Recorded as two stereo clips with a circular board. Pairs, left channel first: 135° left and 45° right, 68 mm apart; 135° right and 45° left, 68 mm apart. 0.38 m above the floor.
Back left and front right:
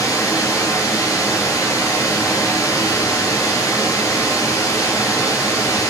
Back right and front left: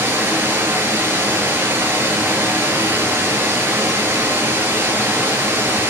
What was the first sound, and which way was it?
Running water, 100° left.